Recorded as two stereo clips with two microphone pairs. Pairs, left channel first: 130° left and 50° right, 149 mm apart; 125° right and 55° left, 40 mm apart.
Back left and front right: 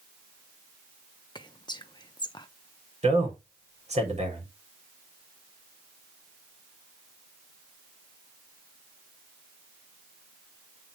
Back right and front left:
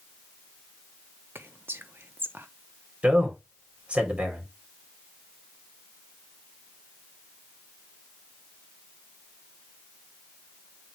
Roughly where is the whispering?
Ahead left.